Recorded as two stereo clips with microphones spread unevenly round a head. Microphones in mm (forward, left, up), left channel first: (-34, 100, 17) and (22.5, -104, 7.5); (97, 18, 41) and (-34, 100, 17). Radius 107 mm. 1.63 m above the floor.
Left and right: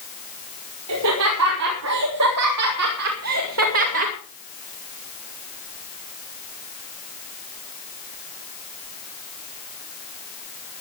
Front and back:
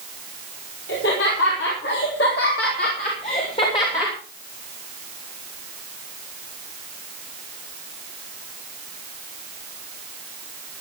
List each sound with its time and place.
0.9 s laughter: 60° right, 5.5 m; by 4.2 s 115° right, 2.5 m